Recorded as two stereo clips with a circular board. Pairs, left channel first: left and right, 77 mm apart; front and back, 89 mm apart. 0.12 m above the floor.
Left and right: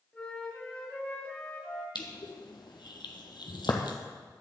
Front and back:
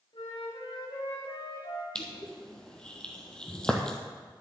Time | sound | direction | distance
0.1 | a flute | 15° left | 4 m
1.9 | crushing | 80° left | 1.6 m